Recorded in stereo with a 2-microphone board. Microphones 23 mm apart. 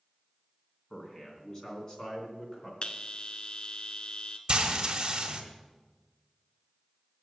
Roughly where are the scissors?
I don't hear scissors.